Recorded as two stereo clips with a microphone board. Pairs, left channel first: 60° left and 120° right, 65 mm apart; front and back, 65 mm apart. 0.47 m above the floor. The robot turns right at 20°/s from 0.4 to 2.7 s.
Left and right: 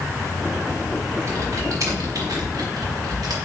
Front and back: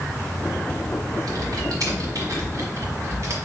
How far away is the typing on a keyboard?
About 1.4 m.